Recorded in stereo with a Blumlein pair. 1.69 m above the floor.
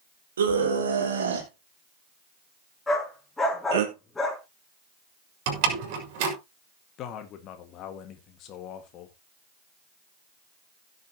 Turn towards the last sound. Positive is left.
turn(degrees=35)